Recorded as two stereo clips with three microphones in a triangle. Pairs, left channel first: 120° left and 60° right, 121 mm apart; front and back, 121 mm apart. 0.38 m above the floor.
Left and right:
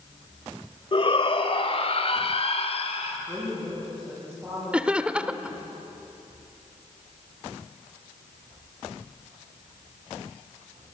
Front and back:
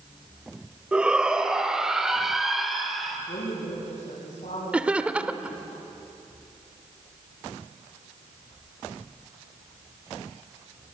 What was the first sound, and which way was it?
A shout, 100° left.